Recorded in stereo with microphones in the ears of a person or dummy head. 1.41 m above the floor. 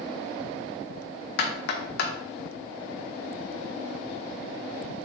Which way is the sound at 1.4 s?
65° left (ahead or behind).